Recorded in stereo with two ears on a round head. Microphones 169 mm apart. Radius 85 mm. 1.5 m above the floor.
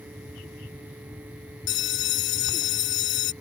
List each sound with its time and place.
1.7 s a bell: 70° left (ahead or behind)